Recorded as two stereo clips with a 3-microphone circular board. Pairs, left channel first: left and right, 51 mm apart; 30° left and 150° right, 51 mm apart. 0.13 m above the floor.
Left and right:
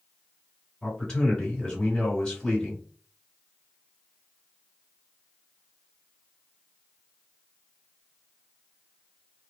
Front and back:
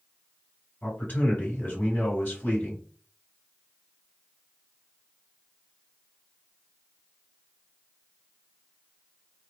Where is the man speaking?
20° left, 2 m.